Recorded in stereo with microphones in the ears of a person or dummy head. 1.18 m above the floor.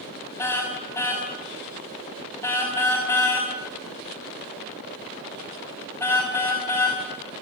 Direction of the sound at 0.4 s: 15° left (ahead or behind).